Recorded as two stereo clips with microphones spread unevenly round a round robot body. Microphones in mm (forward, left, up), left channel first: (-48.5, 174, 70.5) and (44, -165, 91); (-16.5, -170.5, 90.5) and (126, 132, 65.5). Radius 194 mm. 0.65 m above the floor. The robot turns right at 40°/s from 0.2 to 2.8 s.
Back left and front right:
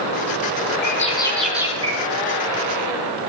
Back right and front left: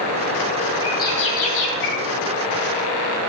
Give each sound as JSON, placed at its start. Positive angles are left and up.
{"t": 0.8, "sound": "a bird", "azimuth_deg": 170, "distance_m": 2.5}